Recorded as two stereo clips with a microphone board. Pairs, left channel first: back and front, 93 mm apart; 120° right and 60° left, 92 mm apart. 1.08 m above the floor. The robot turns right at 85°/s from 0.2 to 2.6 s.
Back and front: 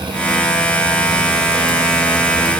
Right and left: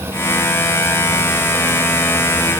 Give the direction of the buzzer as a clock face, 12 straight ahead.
No buzzer in this recording.